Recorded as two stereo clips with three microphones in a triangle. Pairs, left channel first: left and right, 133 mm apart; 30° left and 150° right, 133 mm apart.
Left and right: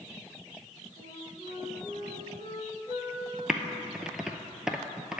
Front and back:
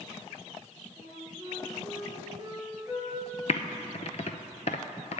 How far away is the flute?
About 2 m.